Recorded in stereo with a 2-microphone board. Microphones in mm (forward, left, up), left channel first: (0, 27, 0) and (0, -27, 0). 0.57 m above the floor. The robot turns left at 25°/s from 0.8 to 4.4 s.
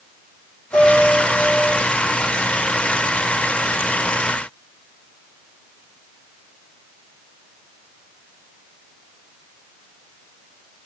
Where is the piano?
85° left, 9.5 m; by 1.7 s 60° left (ahead or behind), 9.5 m.